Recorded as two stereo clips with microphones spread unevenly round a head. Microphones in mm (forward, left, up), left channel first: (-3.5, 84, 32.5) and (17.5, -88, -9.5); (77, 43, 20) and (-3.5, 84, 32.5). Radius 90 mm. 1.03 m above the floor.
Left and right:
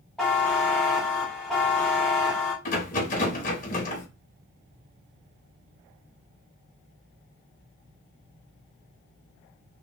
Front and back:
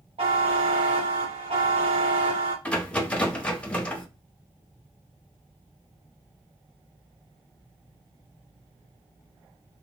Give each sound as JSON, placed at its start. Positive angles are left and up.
{"t": 0.2, "sound": "a buzzer", "azimuth_deg": -170, "distance_m": 0.9}
{"t": 2.6, "sound": "a rattle", "azimuth_deg": 50, "distance_m": 0.9}